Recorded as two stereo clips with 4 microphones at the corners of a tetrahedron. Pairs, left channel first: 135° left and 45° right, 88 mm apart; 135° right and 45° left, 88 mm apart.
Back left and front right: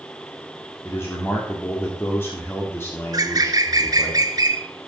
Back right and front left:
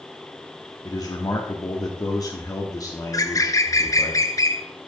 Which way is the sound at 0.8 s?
170° right.